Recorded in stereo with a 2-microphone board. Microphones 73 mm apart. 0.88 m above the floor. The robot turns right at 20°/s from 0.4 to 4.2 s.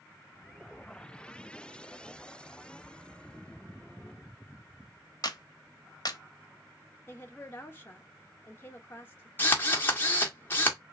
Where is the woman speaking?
30° left (ahead or behind), 1.1 m.